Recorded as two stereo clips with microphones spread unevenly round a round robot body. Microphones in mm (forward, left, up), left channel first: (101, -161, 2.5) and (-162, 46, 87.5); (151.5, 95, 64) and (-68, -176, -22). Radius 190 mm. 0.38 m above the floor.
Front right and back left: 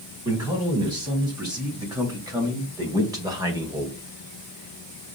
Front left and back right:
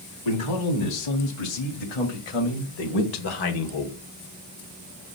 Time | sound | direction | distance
0.2 | a man speaking | 60° left | 4 m